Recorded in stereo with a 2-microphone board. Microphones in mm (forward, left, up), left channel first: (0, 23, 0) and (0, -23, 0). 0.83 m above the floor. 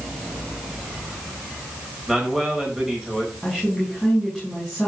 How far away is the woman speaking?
About 6.5 m.